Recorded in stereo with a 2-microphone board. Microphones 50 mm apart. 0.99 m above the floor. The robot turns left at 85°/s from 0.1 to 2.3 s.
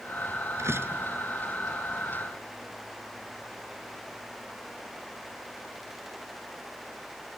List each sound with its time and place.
0.6 s a door slam: 105° right; by 1.1 s 145° right